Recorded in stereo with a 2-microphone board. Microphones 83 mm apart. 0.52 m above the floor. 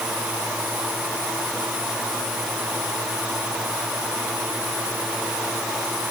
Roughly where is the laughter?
No laughter in this recording.